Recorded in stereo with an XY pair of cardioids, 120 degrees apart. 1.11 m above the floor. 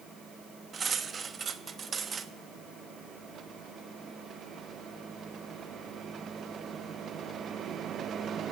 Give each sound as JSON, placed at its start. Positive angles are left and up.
{"t": 0.7, "sound": "cutlery clinking", "azimuth_deg": -35, "distance_m": 0.9}